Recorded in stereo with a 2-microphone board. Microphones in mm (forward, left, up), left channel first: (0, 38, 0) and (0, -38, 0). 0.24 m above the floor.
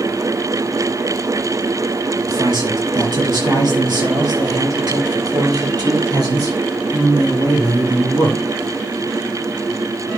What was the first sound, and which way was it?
A man speaking, 80° right.